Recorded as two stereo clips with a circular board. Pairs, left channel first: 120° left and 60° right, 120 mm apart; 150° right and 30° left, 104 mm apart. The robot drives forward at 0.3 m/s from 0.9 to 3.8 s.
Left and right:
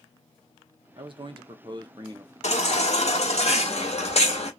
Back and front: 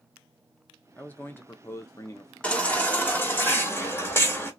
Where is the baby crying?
130° left, 1.2 m; by 4.5 s 145° left, 1.5 m.